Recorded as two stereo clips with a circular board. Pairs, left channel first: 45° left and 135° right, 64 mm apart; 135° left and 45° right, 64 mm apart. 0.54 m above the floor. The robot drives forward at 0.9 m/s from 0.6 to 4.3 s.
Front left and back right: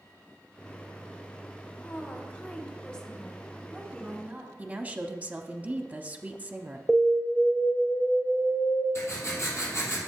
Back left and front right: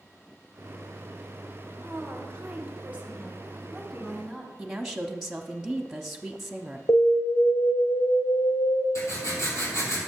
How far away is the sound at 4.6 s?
About 0.7 m.